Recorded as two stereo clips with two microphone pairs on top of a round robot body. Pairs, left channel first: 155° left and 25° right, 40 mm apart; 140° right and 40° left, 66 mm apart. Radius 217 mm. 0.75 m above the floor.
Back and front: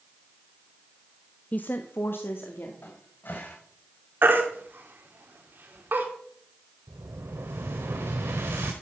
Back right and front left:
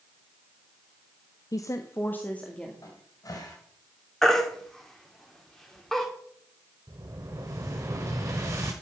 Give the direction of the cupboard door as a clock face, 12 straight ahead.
6 o'clock.